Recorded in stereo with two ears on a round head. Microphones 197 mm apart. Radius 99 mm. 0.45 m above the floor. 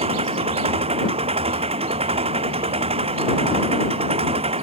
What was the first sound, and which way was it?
An engine running, 30° right (ahead or behind).